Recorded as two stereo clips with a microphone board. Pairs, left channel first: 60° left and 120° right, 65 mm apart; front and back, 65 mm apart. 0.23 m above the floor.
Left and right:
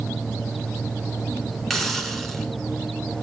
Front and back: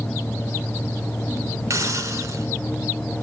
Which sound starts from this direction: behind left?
A hiss, at 1.7 s.